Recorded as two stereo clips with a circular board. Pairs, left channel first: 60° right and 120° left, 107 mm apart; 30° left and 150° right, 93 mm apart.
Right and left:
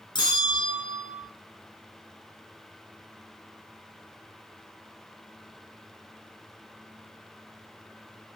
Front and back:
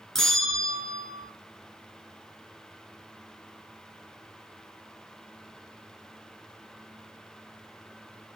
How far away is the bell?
About 0.6 m.